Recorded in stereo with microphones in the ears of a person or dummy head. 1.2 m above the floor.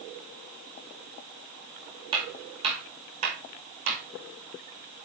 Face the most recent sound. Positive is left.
turn(degrees=-50)  # may be behind; listen again after turning